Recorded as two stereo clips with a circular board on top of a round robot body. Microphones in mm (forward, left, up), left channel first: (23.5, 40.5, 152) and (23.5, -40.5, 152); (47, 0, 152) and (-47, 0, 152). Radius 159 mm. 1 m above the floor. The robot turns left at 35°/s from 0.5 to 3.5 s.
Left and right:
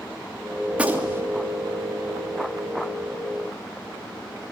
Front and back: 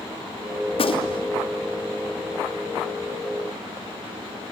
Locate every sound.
0.7 s a gunshot: 10° right, 3 m; by 1.3 s 35° right, 3 m